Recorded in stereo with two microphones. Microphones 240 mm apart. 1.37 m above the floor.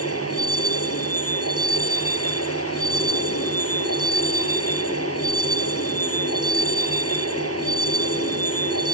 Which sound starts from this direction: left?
A vehicle, at 0.0 s.